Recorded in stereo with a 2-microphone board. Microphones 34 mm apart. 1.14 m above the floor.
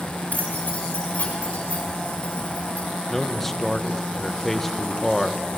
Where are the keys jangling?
50° left (ahead or behind), 5 m; by 2.9 s 40° left (ahead or behind), 8.5 m.